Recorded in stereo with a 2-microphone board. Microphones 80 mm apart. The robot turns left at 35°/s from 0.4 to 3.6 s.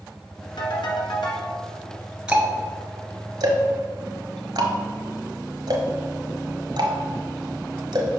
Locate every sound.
0.6 s a ringtone: 115° left, 1.7 m; by 1.5 s 80° left, 1.7 m
2.3 s ticking: 15° right (ahead or behind), 1.1 m; by 8.2 s 60° right (ahead or behind), 1.1 m